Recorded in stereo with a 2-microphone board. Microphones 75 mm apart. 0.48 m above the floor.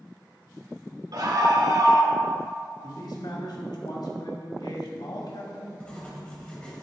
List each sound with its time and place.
1.1 s a scream: 60° right (ahead or behind), 2 m
2.8 s a man speaking: 70° left (ahead or behind), 2.5 m
5.8 s writing: 15° left (ahead or behind), 2.5 m